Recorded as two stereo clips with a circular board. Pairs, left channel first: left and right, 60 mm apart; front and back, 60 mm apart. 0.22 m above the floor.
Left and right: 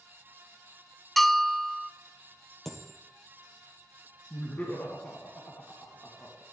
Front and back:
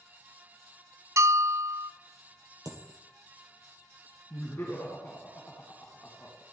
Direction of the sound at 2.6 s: 175° left.